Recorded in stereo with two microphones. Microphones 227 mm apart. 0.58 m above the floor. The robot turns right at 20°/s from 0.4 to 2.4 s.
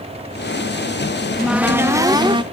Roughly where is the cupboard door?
Centre.